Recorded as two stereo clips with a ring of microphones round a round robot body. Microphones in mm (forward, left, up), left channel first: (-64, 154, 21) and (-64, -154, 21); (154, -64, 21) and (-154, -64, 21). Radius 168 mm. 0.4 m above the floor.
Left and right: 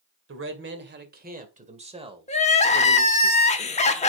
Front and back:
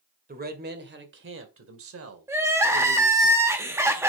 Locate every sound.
0.3 s a man speaking: 125° right, 2 m; by 3.3 s 175° right, 2 m
2.3 s crying: 110° left, 1.2 m